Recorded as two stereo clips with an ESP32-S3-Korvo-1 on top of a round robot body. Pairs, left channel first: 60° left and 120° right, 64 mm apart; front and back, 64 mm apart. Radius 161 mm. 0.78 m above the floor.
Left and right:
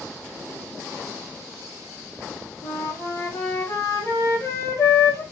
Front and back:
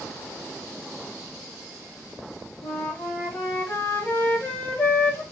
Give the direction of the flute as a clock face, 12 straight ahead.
10 o'clock.